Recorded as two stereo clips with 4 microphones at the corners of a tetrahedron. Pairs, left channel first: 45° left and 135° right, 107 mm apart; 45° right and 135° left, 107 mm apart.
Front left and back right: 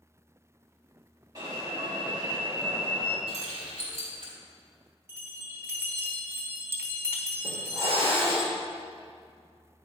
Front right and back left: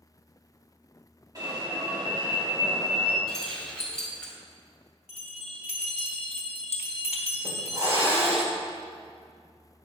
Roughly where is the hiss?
Behind.